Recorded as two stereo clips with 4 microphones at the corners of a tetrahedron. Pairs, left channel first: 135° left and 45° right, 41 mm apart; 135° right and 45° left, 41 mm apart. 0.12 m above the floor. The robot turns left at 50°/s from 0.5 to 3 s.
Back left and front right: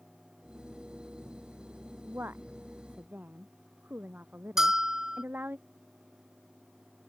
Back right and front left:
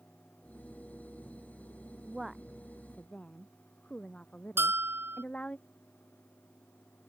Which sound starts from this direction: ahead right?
A woman speaking, at 2.0 s.